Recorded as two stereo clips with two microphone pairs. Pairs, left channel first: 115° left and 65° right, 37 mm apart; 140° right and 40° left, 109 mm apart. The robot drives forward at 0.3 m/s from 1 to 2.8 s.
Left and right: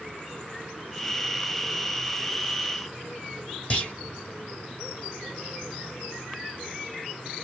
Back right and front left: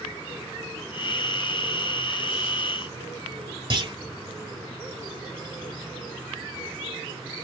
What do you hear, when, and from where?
3.7 s a clunk: 65° left, 1.4 m